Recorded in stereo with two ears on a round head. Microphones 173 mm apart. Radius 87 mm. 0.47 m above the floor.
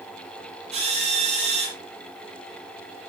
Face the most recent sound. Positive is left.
turn(degrees=-35)  # may be behind; listen again after turning